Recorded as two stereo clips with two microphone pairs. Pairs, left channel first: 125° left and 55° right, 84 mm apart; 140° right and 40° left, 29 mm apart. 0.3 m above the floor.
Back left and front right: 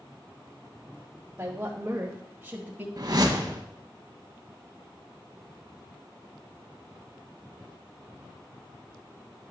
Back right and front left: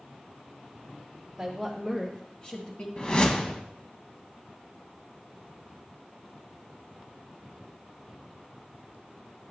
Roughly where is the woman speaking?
Ahead right.